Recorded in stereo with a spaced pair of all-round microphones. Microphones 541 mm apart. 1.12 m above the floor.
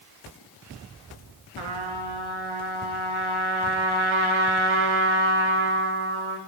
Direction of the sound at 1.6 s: 60° right (ahead or behind).